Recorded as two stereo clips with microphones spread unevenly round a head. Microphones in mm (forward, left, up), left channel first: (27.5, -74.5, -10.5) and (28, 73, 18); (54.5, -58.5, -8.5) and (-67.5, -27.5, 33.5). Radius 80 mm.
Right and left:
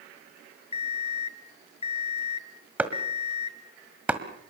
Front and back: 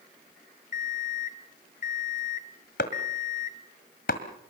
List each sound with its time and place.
0.7 s an alarm clock: 40° right, 1.1 m
2.8 s chopping: 20° left, 1.7 m